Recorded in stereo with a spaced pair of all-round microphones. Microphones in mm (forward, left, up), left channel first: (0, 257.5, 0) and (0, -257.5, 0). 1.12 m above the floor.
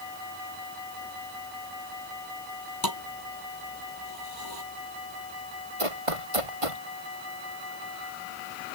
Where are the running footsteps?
80° right.